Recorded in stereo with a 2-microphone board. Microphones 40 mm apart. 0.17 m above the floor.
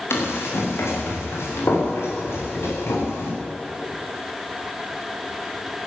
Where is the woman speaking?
No woman speaking in this recording.